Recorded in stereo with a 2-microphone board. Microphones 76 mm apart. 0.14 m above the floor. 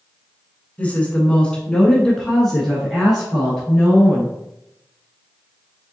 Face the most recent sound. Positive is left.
turn(degrees=-5)  # may be behind; listen again after turning